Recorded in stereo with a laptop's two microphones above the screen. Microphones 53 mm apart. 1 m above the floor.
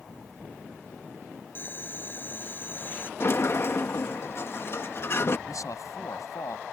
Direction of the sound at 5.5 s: 80° left.